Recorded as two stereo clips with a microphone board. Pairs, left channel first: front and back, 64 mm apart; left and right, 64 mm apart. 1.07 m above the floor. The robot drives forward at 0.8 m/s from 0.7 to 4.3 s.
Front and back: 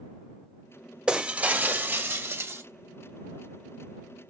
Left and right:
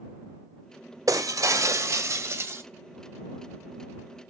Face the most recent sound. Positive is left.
turn(degrees=-155)